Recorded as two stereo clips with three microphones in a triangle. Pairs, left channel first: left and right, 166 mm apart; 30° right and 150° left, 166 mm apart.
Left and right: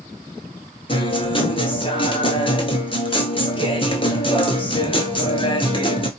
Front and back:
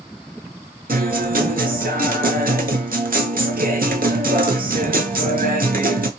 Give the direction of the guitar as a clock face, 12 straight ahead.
7 o'clock.